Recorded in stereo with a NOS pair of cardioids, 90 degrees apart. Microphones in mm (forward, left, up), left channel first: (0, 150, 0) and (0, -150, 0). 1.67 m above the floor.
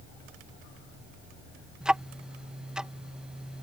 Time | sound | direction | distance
1.8 | ticking | 5° right | ?